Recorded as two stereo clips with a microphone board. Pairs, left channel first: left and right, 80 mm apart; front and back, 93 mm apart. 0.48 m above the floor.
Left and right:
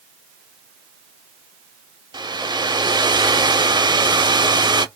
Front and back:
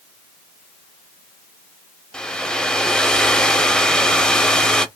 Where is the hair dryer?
80° right, 0.6 m.